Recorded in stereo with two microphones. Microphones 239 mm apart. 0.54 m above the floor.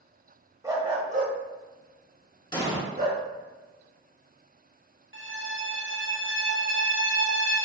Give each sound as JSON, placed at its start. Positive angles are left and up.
{"t": 0.6, "sound": "a dog barking", "side_deg": -15, "distance_m": 0.9}
{"t": 2.5, "sound": "an explosion", "side_deg": 20, "distance_m": 1.2}
{"t": 5.1, "sound": "a violin", "side_deg": -55, "distance_m": 0.8}